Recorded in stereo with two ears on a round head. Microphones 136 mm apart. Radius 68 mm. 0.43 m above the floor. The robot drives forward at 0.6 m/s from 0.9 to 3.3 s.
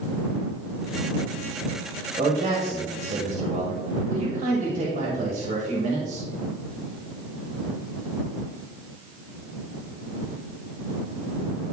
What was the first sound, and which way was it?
A man speaking, 40° right (ahead or behind).